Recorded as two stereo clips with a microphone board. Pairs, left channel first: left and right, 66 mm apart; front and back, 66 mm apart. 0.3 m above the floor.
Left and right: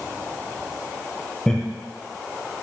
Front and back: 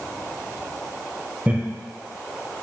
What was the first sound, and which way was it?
Laughter, 155° left.